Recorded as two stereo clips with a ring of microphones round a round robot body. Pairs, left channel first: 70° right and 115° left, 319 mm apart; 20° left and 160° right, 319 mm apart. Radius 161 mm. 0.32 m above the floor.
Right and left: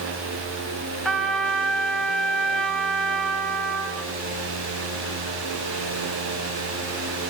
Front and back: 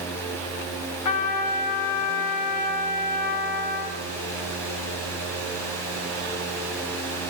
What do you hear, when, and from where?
1.1 s a trumpet: 20° left, 2 m